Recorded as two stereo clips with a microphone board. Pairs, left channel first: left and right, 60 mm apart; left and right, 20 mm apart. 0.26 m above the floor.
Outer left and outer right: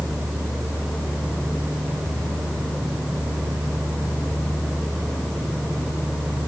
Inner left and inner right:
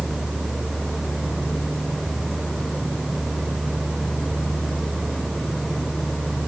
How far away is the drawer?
No drawer in this recording.